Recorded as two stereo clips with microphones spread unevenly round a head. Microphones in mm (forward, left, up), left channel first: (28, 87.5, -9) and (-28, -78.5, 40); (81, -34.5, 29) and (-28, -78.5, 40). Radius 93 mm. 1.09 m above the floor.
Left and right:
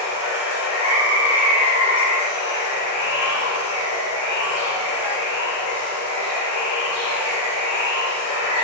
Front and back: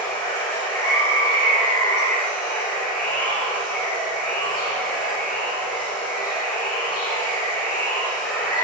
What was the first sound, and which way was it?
Running water, 40° left.